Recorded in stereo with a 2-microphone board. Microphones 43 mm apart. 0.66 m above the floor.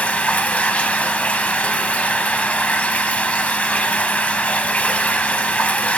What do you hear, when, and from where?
0.0 s running water: 35° left (ahead or behind), 0.9 m